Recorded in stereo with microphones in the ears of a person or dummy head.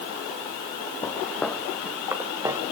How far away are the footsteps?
About 3.5 m.